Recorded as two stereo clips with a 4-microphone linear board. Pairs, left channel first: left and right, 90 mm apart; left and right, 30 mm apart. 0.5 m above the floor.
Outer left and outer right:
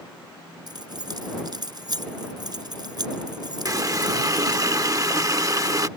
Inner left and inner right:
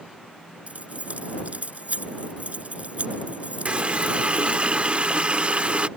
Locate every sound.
0.7 s keys jangling: 50° right (ahead or behind)
3.6 s a running tap: 40° right (ahead or behind)